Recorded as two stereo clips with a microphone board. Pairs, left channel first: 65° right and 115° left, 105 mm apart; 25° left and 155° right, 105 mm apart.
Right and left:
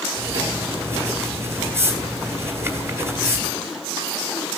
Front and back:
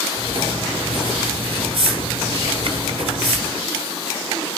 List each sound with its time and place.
0.1 s writing: 175° left, 1.7 m